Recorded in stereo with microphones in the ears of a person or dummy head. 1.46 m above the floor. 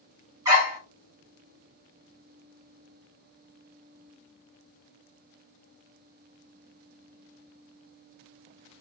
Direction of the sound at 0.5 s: 20° right (ahead or behind).